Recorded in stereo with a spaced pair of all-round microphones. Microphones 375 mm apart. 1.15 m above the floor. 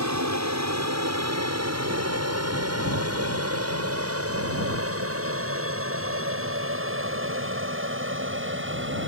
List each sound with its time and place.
0.0 s an aircraft: 45° right (ahead or behind); by 9.1 s 30° right (ahead or behind)